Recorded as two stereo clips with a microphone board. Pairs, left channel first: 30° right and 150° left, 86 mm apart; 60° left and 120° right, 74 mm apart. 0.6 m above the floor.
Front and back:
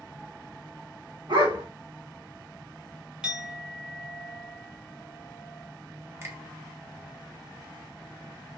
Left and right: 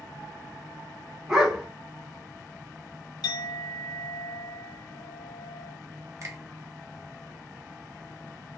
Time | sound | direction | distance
1.3 | a dog barking | 155° left | 1.4 m
3.2 | a clink | 75° left | 1.2 m
6.2 | a finger snap | 155° right | 0.7 m